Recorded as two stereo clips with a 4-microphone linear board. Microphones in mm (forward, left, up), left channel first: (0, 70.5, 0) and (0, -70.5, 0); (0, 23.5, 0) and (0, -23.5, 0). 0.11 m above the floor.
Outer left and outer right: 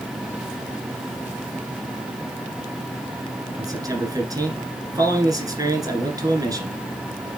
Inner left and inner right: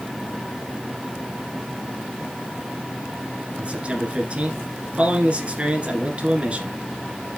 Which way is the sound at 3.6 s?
25° right (ahead or behind).